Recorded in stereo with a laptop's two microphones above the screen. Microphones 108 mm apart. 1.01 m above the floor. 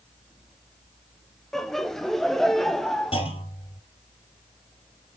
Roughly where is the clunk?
Left.